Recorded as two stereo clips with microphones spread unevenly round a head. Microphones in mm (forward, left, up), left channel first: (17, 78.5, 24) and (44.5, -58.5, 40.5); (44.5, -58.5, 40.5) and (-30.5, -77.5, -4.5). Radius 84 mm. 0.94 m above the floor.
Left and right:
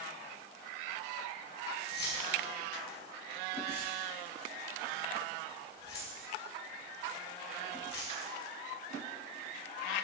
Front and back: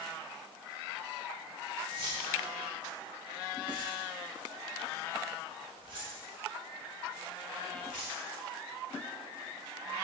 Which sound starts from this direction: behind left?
Keys jangling, at 1.9 s.